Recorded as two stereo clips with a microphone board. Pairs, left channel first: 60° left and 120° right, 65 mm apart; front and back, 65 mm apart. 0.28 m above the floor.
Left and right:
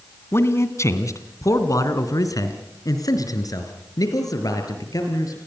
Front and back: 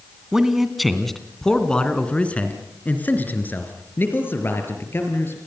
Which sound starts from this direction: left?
A man speaking, at 0.3 s.